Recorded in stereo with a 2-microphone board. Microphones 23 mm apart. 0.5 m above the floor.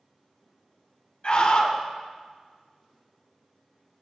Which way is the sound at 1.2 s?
50° left (ahead or behind).